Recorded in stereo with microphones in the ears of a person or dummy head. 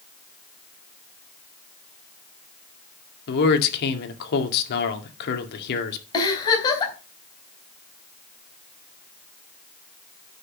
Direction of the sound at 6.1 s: 20° left (ahead or behind).